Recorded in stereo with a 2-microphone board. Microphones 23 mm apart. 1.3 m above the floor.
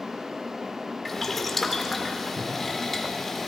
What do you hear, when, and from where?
1.1 s boiling: 10° left (ahead or behind), 1.8 m